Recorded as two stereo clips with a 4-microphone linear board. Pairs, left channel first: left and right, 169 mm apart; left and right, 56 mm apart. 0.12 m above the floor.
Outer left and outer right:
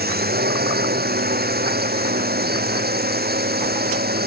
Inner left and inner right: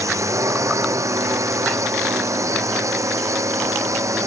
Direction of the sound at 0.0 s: 70° right (ahead or behind).